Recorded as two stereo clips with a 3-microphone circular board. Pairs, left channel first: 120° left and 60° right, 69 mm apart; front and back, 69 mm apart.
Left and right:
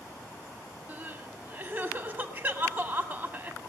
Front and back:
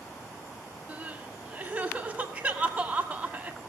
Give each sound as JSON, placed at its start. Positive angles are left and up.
{"t": 0.9, "sound": "crying", "azimuth_deg": -110, "distance_m": 1.7}